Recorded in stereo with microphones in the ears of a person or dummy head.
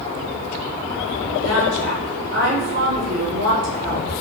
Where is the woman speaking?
65° right (ahead or behind), 4 m.